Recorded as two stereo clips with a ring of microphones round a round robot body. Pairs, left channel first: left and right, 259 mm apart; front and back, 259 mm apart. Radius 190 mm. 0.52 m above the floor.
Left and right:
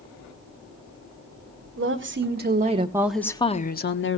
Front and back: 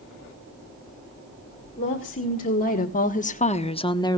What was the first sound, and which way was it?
A woman speaking, 65° right.